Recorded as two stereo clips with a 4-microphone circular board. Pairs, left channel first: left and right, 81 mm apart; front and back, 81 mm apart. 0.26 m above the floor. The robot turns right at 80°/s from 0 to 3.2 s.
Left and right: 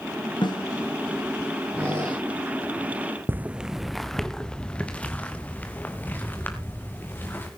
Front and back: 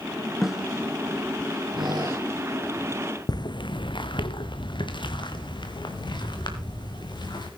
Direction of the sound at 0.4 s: 90° left.